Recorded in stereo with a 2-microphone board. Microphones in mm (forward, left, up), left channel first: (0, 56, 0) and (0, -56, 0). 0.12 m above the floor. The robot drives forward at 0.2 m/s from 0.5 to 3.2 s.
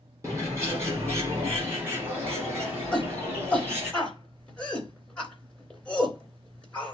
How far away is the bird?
About 2.5 m.